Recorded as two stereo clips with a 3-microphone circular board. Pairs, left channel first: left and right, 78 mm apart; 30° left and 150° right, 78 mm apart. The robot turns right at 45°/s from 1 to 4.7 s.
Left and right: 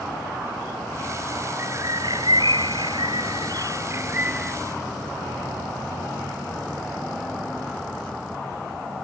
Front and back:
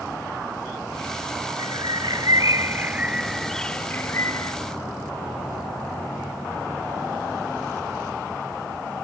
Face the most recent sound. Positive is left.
turn(degrees=0)